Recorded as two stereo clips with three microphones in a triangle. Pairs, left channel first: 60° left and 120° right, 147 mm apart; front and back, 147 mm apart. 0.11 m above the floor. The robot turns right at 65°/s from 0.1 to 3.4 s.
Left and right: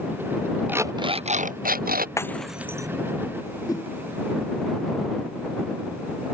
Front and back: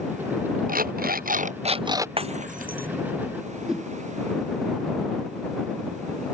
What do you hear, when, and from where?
0.7 s an alarm clock: 160° left; by 2.1 s 110° right
2.2 s breaking glass: 130° left; by 2.9 s 175° left
3.7 s a whoosh: 100° left